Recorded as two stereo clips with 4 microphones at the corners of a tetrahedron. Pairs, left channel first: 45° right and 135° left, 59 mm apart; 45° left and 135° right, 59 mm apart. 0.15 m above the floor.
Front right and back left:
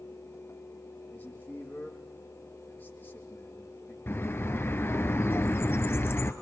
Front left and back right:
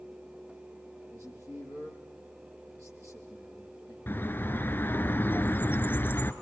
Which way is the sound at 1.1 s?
105° right.